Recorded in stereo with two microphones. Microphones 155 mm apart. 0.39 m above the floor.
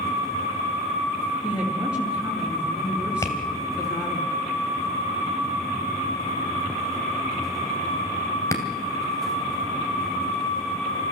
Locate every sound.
1.4 s a woman speaking: 5° right (ahead or behind), 5 m
3.2 s tapping: 20° left (ahead or behind), 2.5 m